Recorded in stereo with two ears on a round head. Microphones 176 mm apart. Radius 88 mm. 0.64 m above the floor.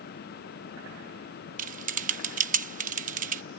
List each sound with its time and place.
1.6 s typing on a keyboard: 40° right (ahead or behind)